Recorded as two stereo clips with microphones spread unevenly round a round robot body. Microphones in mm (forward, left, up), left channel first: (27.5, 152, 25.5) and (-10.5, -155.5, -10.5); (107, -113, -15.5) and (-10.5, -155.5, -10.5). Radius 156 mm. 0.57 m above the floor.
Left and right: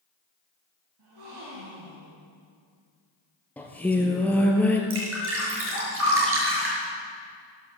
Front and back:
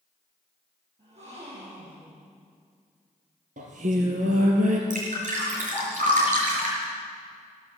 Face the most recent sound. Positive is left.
turn(degrees=-150)